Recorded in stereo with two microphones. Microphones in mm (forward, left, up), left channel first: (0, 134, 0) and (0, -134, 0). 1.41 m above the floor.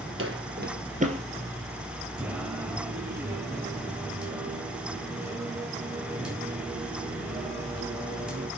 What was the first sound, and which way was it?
Footsteps, 50° right (ahead or behind).